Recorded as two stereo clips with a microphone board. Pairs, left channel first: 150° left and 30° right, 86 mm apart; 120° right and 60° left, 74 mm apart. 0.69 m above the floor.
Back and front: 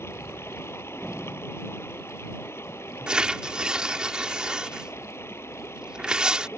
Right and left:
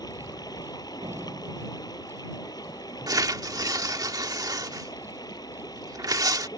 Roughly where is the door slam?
Left.